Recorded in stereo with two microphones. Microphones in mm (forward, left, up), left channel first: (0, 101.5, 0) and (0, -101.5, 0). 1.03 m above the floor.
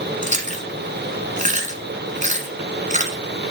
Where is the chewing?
40° right (ahead or behind), 1.8 m.